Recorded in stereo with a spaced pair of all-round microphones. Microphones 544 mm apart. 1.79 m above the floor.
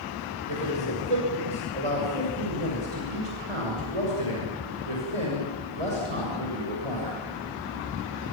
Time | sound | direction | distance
0.5 | a man speaking | 65° right (ahead or behind) | 7 m